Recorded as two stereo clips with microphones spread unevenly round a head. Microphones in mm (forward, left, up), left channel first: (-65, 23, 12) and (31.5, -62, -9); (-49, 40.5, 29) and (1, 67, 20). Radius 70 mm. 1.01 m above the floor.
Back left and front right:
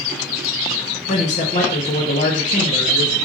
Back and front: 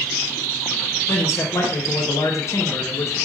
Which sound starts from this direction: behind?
A man speaking, at 1.1 s.